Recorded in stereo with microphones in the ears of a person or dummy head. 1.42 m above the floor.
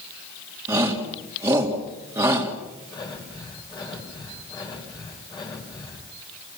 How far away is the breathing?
About 4.5 m.